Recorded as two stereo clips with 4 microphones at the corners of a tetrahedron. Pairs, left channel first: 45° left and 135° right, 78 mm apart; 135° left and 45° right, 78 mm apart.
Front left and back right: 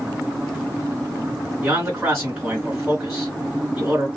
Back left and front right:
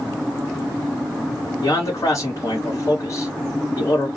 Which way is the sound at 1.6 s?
155° left.